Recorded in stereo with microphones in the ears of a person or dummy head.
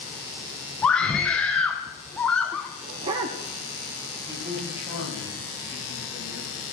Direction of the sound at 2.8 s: 25° right (ahead or behind).